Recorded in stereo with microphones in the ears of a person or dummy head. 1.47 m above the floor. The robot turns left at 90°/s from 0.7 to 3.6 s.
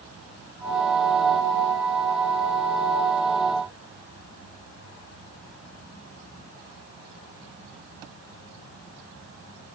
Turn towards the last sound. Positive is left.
No sound to turn to.